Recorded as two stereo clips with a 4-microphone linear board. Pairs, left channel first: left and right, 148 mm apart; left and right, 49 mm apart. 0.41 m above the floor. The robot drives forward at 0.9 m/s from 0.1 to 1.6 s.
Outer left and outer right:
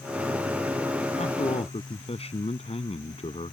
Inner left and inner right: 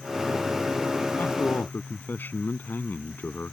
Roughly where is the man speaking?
Left.